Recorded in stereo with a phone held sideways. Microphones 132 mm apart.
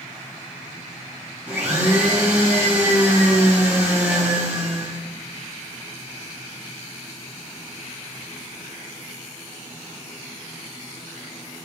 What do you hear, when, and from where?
1.5 s a blender: 15° right (ahead or behind), 1.1 m